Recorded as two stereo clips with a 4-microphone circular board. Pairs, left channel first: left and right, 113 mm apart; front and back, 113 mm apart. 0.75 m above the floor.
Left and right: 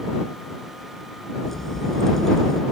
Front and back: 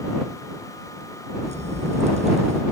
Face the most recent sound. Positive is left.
turn(degrees=175)